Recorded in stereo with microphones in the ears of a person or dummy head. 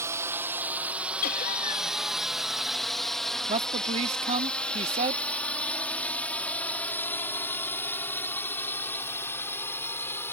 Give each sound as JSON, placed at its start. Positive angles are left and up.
{"t": 0.0, "sound": "a drone", "side_deg": -15}
{"t": 1.2, "sound": "laughter", "side_deg": 45}
{"t": 3.5, "sound": "a man speaking", "side_deg": -35}